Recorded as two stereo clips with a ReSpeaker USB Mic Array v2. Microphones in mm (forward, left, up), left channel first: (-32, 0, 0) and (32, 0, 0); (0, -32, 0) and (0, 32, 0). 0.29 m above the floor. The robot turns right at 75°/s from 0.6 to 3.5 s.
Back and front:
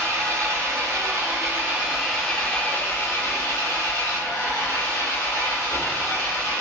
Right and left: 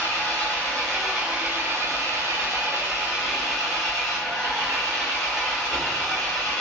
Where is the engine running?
30° right, 1.1 m; by 6.6 s 170° right, 1.1 m.